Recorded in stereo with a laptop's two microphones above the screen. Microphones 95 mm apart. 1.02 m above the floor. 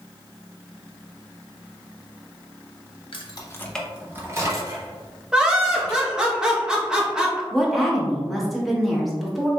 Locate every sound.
3.1 s keys jangling: 65° left (ahead or behind), 0.7 m; by 6.2 s 50° right (ahead or behind), 3 m
5.3 s laughter: 5° right (ahead or behind), 1.0 m
7.5 s a woman speaking: centre (ahead or behind), 1.1 m